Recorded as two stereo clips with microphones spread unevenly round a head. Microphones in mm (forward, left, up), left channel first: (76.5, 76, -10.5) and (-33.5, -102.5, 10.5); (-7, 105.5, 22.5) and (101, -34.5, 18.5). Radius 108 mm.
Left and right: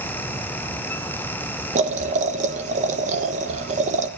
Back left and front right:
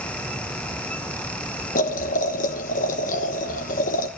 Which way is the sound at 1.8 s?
Straight behind.